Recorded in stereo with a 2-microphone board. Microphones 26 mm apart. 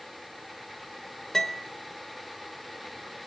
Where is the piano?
15° left (ahead or behind), 0.7 m.